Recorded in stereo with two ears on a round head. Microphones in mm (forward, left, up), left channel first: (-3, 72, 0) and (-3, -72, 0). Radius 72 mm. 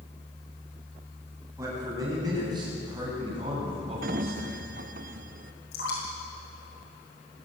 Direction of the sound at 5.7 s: 80° left.